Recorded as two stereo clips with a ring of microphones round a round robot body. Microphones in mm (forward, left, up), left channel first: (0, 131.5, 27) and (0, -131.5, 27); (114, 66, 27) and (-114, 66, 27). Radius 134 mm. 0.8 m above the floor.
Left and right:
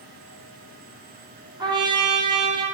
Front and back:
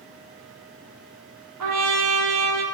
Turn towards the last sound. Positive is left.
turn(degrees=-165)